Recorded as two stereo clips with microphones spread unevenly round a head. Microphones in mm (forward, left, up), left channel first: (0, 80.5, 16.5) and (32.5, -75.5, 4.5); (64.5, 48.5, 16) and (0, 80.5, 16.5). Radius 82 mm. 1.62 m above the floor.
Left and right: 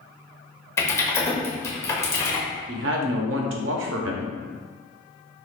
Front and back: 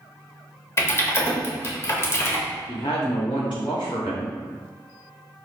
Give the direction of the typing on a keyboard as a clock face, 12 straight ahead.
11 o'clock.